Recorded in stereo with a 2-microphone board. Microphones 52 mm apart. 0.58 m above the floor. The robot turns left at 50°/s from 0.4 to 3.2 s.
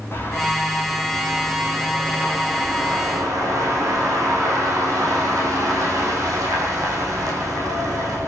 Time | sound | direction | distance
0.1 | a bird | 40° left | 8 m